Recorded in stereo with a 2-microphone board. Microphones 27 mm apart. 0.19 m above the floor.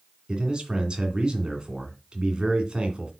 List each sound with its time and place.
0.3 s a man speaking: 35° right (ahead or behind), 2 m